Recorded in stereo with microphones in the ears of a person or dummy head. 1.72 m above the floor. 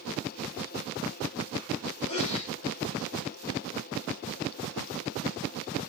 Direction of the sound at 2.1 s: 40° left (ahead or behind).